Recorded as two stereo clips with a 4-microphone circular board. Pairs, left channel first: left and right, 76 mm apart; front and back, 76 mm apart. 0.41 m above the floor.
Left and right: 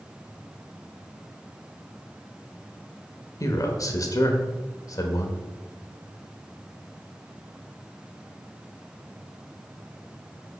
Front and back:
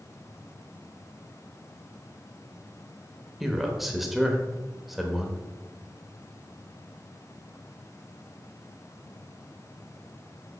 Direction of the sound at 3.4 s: 95° left.